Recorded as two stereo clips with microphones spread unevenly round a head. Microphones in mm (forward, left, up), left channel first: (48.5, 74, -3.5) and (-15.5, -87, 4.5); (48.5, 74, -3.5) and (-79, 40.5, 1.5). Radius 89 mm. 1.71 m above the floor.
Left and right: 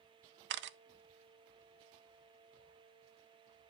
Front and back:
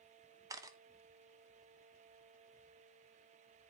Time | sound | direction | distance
0.5 | a camera shutter | 95° right | 0.6 m